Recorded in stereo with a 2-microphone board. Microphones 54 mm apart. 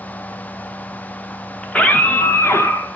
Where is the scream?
20° left (ahead or behind), 1.4 m; by 3.0 s 60° left (ahead or behind), 1.5 m.